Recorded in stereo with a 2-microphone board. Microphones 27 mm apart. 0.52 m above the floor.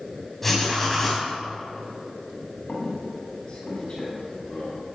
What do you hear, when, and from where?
0.4 s writing: 5° left (ahead or behind), 3 m
2.7 s a squeak: 35° left (ahead or behind), 3 m